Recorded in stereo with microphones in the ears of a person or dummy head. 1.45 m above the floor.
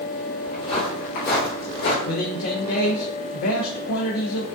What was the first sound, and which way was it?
Footsteps, 20° left (ahead or behind).